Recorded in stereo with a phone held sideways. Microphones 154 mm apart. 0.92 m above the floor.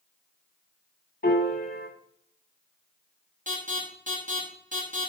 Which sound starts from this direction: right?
An alarm, at 3.5 s.